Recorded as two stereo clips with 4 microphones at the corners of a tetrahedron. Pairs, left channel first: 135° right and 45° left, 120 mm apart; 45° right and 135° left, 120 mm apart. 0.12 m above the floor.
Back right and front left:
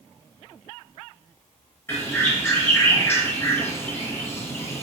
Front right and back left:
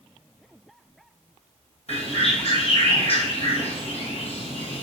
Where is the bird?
65° right, 3.5 m.